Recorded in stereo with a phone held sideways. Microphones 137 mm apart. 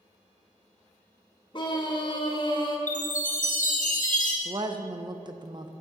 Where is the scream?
35° left (ahead or behind), 1.3 m.